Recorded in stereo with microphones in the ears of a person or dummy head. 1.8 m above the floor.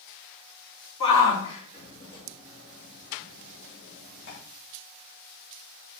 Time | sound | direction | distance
1.0 | a shout | 35° left (ahead or behind) | 4 m